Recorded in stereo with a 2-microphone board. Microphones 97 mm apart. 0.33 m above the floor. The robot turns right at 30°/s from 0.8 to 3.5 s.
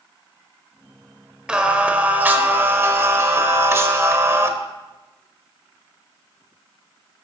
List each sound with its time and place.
1.5 s singing: 10° right (ahead or behind), 0.9 m; by 4.5 s 30° right (ahead or behind), 0.9 m